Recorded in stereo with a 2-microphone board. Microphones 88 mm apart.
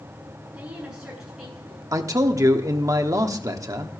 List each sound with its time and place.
0.5 s a woman speaking: 15° right (ahead or behind), 7.5 m; by 1.8 s centre (ahead or behind), 7.5 m
1.9 s a man speaking: 40° right (ahead or behind), 1.0 m